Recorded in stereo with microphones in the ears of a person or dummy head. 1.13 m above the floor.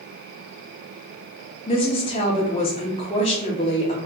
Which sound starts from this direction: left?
A woman speaking, at 1.7 s.